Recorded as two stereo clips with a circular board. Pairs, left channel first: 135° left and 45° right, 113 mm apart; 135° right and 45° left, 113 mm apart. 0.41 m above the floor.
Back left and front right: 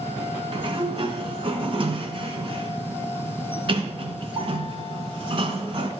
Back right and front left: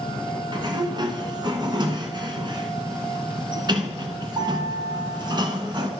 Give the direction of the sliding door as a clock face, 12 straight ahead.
12 o'clock.